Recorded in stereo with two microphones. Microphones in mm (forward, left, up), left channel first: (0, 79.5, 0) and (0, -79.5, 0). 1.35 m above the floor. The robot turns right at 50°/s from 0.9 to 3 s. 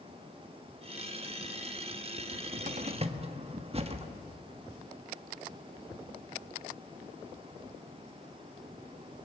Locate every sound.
2.2 s a cupboard door: 70° right (ahead or behind), 1.4 m; by 4.1 s 40° right (ahead or behind), 1.4 m